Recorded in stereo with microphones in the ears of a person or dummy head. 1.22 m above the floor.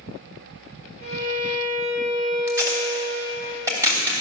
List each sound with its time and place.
1.0 s a violin: 35° right (ahead or behind), 6 m
2.5 s tape being pulled: 15° right (ahead or behind), 3 m